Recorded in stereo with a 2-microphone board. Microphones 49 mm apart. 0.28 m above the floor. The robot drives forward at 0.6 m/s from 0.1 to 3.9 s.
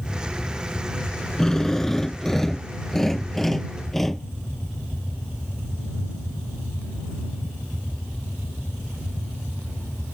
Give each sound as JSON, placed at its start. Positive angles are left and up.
{"t": 1.4, "sound": "a drill", "side_deg": 10}